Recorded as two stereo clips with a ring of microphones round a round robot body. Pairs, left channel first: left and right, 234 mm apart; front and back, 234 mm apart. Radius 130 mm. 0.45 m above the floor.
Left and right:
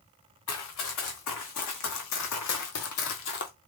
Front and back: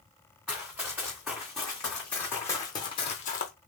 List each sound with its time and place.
0.5 s running footsteps: 95° left, 2 m; by 3.5 s 40° left, 0.6 m